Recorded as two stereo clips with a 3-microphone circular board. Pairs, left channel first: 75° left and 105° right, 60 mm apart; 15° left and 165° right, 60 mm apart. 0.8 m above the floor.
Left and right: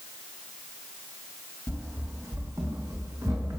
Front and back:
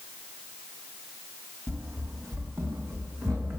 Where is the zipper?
No zipper in this recording.